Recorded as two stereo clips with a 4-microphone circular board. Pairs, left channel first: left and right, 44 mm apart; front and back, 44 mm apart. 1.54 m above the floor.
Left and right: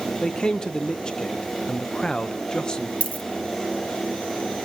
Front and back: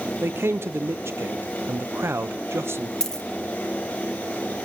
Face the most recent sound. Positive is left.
turn(degrees=65)